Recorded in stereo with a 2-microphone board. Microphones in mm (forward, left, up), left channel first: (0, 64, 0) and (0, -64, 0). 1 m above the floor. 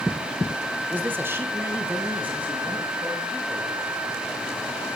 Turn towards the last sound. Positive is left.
turn(degrees=-10)  # may be behind; listen again after turning